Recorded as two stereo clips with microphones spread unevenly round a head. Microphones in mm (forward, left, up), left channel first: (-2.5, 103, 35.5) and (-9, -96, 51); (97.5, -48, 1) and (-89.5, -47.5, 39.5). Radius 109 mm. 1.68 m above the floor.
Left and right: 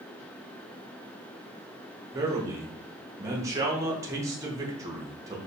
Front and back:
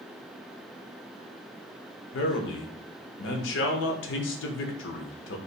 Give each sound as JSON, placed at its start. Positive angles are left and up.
{"t": 2.1, "sound": "a man speaking", "azimuth_deg": -15, "distance_m": 0.8}